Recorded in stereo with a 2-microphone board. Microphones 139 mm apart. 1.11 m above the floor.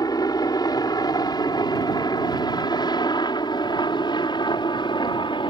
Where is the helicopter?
30° left (ahead or behind); by 5.5 s 40° left (ahead or behind).